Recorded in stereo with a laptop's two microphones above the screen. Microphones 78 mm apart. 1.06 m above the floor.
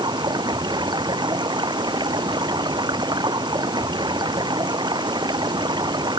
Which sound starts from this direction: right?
Running water, at 0.0 s.